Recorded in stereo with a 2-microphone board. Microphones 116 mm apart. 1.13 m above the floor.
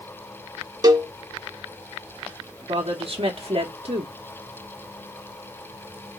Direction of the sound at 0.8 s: 35° right (ahead or behind).